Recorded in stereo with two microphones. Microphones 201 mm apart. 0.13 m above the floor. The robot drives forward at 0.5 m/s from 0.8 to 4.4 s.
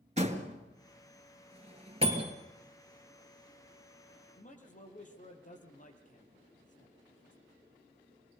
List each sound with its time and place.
0.2 s a door slam: 35° right (ahead or behind), 1.8 m; by 2.4 s 25° right (ahead or behind), 2.5 m
2.0 s a bicycle bell: 60° left (ahead or behind), 3.5 m
4.4 s a man speaking: 40° left (ahead or behind), 3.5 m